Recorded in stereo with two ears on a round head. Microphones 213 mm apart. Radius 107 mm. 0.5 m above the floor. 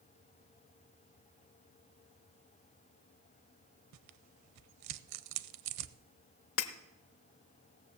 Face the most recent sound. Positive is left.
turn(degrees=60)  # may be behind; listen again after turning